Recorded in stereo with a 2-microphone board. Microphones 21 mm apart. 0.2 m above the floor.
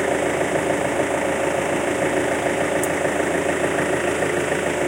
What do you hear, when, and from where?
0.0 s an engine running: centre (ahead or behind)